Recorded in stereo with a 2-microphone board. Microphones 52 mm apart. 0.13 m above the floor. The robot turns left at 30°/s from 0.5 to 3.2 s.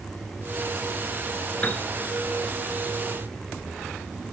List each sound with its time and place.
1.6 s a piano: 25° left (ahead or behind), 0.6 m; by 1.8 s 30° left (ahead or behind), 0.6 m